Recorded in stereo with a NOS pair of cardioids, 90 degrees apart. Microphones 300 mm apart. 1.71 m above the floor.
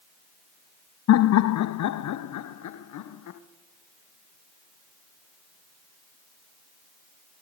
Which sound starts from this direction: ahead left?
Laughter, at 1.1 s.